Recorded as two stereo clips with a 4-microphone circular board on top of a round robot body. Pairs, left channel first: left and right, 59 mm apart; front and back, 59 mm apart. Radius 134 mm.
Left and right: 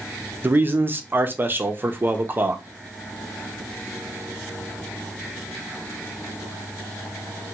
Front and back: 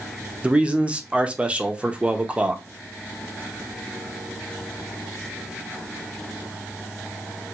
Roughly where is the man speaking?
Behind right.